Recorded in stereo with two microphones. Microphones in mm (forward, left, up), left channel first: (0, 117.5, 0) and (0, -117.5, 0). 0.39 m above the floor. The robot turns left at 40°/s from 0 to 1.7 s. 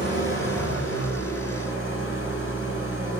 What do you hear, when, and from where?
0.0 s an engine running: 135° left, 1.3 m; by 3.2 s 65° left, 1.3 m